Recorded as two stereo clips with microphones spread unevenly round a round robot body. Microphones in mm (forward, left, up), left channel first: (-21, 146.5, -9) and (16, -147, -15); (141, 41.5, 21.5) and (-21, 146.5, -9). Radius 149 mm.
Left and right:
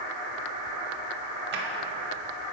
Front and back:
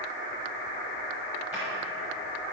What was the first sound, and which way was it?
A drawer, 130° right.